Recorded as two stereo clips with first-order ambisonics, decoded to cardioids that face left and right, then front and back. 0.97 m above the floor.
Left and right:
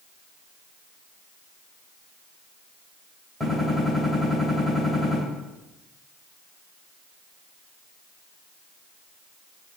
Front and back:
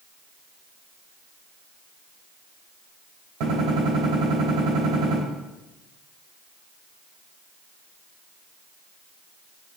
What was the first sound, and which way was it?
A gunshot, 165° right.